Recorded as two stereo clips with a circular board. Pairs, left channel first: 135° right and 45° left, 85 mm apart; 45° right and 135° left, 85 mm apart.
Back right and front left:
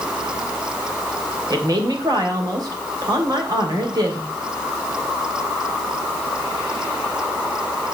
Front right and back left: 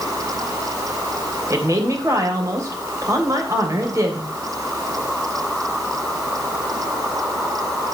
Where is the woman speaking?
85° left, 3 m.